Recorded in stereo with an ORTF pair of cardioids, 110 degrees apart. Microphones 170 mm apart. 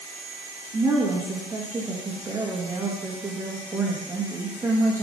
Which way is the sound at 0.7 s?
20° right.